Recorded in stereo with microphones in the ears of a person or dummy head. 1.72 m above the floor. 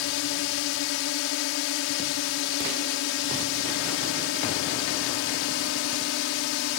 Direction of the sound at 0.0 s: 80° left.